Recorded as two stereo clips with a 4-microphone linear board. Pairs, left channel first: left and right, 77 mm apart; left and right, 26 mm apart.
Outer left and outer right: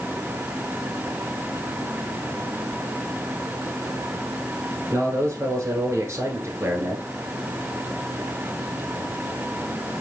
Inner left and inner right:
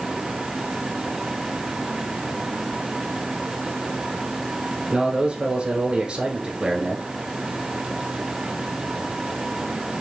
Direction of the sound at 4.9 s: 35° right (ahead or behind).